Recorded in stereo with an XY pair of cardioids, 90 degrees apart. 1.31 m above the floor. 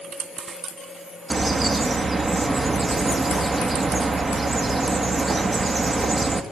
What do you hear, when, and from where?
1.3 s a bird: 35° right, 2.5 m